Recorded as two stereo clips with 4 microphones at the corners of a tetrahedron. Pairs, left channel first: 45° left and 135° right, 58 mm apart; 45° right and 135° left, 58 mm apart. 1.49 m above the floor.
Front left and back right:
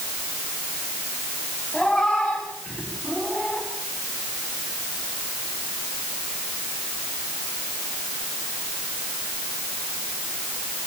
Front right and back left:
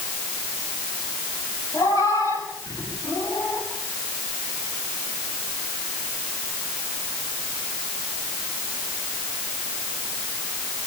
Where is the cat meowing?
45° right, 9.5 m; by 3.7 s 50° right, 9 m.